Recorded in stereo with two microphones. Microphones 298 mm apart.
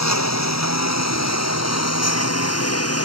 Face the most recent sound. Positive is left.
turn(degrees=55)  # may be behind; listen again after turning